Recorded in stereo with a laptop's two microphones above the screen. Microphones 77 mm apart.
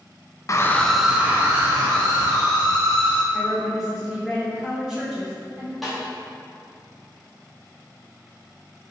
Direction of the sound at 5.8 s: Centre (ahead or behind).